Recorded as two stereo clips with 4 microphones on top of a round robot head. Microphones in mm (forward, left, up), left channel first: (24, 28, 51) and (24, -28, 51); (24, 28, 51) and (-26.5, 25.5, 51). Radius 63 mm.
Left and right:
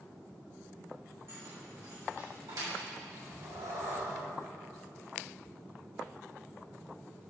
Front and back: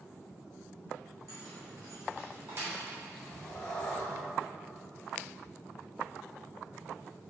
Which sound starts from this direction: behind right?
Keys jangling, at 1.3 s.